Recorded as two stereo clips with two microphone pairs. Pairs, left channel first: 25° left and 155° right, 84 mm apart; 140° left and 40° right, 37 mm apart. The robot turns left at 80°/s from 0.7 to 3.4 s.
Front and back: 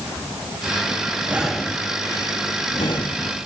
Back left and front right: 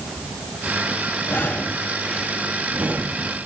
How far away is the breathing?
About 1.2 m.